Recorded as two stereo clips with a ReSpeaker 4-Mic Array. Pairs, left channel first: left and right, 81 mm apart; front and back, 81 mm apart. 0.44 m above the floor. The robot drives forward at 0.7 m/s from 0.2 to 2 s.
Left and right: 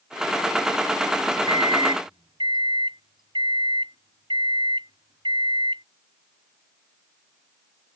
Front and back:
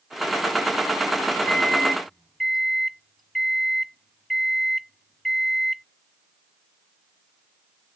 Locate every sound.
1.5 s a microwave: 80° right; by 5.8 s 90° right